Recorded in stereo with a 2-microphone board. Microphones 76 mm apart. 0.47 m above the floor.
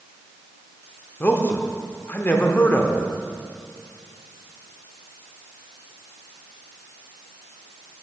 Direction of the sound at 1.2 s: 30° left (ahead or behind).